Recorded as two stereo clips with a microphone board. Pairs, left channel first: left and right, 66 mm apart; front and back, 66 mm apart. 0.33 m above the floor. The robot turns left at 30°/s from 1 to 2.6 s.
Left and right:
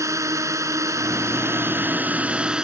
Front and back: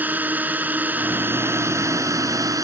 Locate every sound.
0.0 s a drone: 120° right; by 2.6 s 165° right